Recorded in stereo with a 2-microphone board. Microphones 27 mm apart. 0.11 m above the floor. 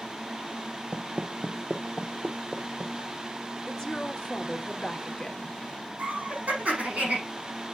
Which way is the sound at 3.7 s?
15° left (ahead or behind).